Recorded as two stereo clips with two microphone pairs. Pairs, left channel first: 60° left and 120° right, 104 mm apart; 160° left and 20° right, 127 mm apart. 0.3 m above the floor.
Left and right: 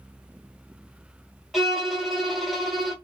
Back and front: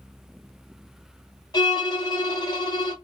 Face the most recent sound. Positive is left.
turn(degrees=150)